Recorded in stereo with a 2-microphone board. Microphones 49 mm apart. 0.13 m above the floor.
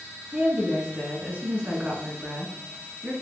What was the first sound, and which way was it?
A woman speaking, 30° right (ahead or behind).